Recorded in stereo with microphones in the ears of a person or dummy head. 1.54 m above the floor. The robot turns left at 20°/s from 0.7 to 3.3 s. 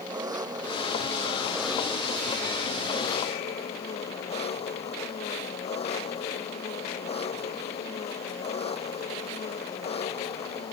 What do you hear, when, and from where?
0.0 s an engine running: 160° right; by 10.7 s 145° left